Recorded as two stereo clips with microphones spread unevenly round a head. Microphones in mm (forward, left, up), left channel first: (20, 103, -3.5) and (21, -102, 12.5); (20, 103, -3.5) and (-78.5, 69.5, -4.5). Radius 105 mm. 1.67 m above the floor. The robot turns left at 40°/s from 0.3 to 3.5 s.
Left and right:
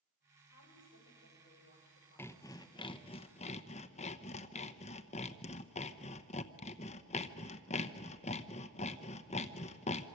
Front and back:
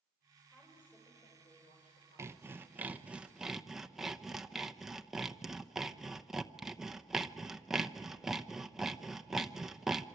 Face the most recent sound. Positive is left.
turn(degrees=115)